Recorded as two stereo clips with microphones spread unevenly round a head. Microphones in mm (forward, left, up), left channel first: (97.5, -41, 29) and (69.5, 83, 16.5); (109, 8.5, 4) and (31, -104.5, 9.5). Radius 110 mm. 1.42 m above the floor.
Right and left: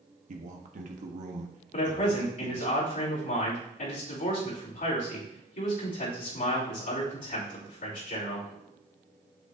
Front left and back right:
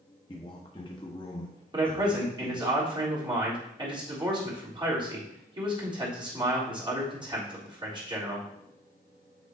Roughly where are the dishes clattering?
I don't hear dishes clattering.